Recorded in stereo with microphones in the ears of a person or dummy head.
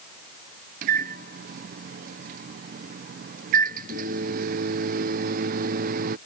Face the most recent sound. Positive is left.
turn(degrees=-45)  # may be behind; listen again after turning